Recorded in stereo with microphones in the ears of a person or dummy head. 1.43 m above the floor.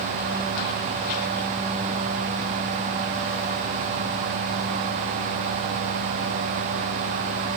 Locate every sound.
Only background noise.